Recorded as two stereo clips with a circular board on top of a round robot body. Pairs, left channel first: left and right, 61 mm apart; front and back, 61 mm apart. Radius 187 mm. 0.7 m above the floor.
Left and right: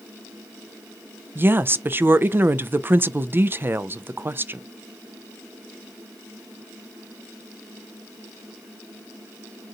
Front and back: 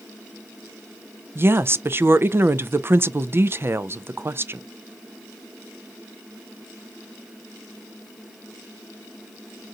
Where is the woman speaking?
135° right, 0.5 m.